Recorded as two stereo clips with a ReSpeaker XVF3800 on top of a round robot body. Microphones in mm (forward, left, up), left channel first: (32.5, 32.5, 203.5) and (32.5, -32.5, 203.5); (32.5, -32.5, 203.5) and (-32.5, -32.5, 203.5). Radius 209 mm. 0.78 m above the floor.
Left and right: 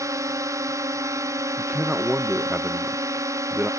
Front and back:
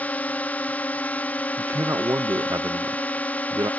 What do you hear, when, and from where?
0.0 s a drone: 65° right
1.6 s a man speaking: 155° right